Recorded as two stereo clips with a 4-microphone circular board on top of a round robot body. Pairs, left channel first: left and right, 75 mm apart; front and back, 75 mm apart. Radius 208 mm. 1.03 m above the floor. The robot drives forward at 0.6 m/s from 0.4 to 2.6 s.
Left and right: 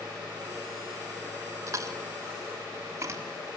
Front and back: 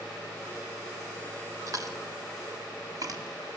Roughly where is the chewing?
Behind right.